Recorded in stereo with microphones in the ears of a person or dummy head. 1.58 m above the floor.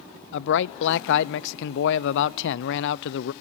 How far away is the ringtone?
No ringtone in this recording.